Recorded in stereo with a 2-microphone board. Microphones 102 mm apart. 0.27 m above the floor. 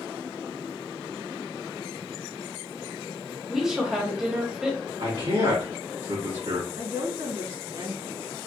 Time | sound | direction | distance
3.5 | a woman speaking | 5° right (ahead or behind) | 1.1 m
5.0 | a man speaking | 65° right (ahead or behind) | 1.9 m
6.8 | a woman speaking | 50° right (ahead or behind) | 2.0 m